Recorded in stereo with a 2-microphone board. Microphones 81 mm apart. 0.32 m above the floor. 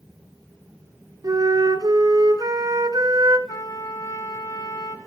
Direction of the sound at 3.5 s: 55° left (ahead or behind).